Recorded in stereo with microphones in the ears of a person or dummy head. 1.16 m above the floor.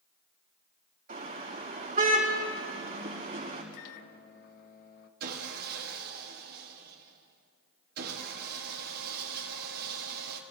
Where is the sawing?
55° right (ahead or behind), 1.5 m.